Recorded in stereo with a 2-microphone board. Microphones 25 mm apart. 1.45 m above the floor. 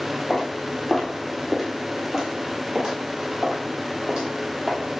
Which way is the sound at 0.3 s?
20° left (ahead or behind).